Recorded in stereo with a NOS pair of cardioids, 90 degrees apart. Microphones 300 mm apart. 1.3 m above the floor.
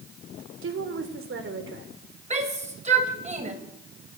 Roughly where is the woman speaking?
Ahead right.